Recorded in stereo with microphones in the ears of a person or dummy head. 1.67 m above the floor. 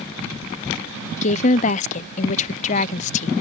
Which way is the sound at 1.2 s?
40° left (ahead or behind).